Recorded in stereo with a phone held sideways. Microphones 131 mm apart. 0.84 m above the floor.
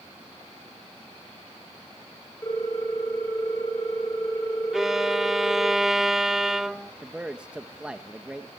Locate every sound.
2.4 s a ringtone: 25° left (ahead or behind), 7 m
4.7 s a violin: 5° right (ahead or behind), 0.8 m
7.0 s a man speaking: 10° right (ahead or behind), 1.0 m